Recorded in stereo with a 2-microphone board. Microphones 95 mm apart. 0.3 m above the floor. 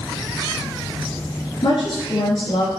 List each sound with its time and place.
1.6 s a woman speaking: 60° left (ahead or behind), 3.5 m